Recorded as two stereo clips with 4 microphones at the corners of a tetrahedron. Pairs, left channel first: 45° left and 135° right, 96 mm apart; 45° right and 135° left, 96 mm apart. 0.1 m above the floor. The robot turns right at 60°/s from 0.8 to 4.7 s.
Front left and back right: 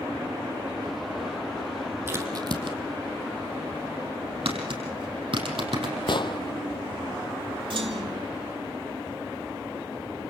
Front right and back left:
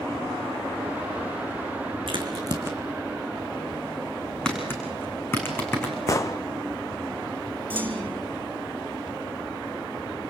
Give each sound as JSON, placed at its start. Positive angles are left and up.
{"t": 2.1, "sound": "a crack", "azimuth_deg": 160, "distance_m": 3.0}
{"t": 4.5, "sound": "tapping", "azimuth_deg": -125, "distance_m": 5.0}
{"t": 6.1, "sound": "an explosion", "azimuth_deg": 10, "distance_m": 1.0}
{"t": 7.7, "sound": "a clunk", "azimuth_deg": -155, "distance_m": 2.5}